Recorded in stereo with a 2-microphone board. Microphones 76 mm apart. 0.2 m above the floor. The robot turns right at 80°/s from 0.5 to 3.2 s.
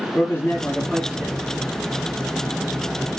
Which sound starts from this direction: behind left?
A man speaking, at 0.1 s.